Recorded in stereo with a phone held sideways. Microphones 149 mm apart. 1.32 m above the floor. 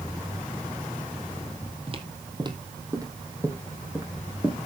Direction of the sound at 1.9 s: 40° right (ahead or behind).